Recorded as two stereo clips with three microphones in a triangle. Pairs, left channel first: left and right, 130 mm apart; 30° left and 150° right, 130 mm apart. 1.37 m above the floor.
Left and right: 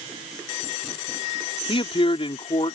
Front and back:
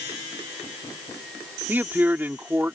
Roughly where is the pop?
I don't hear a pop.